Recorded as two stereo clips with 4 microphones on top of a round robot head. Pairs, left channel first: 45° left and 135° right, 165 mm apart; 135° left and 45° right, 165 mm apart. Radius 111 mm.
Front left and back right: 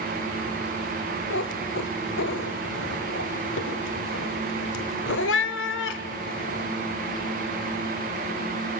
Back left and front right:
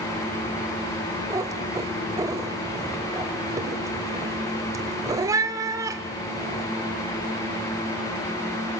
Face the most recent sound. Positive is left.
turn(degrees=30)